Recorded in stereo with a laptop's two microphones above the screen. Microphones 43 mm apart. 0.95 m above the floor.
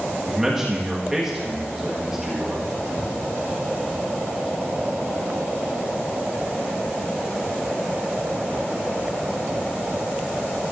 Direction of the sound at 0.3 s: 10° right (ahead or behind).